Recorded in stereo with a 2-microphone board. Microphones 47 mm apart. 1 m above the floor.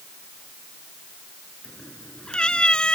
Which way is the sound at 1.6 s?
20° left (ahead or behind).